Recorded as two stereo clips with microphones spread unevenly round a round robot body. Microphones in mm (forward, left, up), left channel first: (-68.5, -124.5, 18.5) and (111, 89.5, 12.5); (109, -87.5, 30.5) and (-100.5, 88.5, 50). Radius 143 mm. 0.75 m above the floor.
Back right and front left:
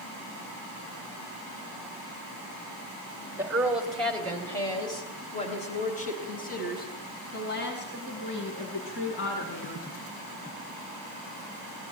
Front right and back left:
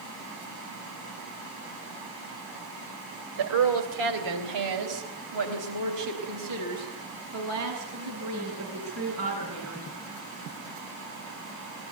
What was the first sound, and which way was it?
A woman speaking, 130° left.